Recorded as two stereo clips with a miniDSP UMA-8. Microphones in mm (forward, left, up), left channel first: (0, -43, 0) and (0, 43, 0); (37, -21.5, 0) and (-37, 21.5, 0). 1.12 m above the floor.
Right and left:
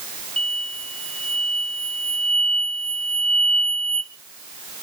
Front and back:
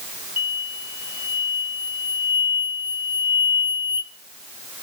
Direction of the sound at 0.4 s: 15° right.